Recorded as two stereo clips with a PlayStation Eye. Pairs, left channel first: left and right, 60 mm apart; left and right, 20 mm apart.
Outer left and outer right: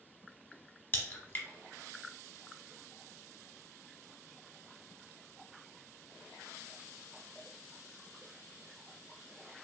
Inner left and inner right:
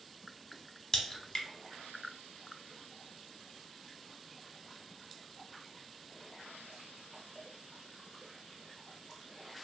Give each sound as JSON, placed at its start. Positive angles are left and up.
{"t": 0.9, "sound": "a crack", "side_deg": 30, "distance_m": 0.9}